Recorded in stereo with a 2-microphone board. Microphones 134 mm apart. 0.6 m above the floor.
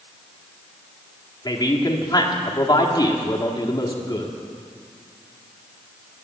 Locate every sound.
1.4 s a man speaking: 30° left (ahead or behind), 1.5 m